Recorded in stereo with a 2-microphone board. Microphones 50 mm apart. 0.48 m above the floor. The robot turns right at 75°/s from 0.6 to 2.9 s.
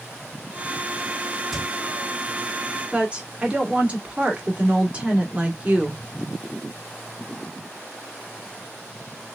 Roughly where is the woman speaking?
Right.